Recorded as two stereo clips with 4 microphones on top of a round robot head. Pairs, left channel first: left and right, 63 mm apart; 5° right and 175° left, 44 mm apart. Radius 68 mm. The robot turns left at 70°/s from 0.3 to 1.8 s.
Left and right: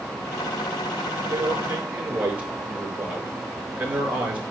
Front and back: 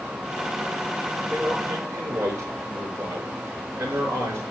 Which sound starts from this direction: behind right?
A man speaking, at 1.3 s.